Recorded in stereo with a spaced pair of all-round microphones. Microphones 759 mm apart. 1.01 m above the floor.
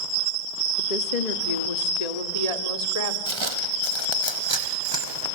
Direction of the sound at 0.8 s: 70° left (ahead or behind).